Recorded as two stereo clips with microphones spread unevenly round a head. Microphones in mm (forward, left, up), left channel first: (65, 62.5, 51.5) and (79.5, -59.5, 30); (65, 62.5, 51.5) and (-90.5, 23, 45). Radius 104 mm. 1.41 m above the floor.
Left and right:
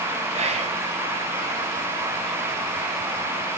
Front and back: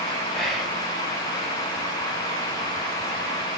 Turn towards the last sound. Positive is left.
turn(degrees=-75)